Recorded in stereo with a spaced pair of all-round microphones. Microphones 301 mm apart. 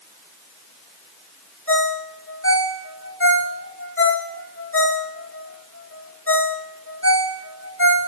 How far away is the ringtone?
About 2.0 m.